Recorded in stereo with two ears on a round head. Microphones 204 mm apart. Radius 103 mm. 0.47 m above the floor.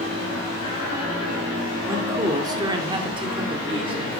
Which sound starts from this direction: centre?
A man speaking, at 1.9 s.